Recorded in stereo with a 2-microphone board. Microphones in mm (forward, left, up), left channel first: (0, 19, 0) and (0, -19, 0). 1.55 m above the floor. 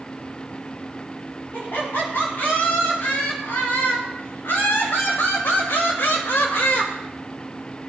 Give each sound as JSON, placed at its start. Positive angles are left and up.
{"t": 1.5, "sound": "laughter", "side_deg": 75, "distance_m": 4.0}